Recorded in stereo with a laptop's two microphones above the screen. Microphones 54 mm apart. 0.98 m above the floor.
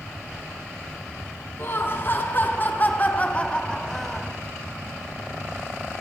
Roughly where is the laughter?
Left.